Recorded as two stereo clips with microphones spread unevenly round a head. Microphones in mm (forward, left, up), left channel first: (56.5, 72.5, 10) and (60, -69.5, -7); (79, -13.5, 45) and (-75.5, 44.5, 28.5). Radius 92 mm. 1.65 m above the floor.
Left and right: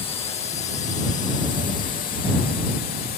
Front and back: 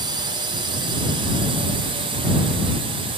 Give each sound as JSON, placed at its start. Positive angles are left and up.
{"t": 0.0, "sound": "a drone", "azimuth_deg": 130}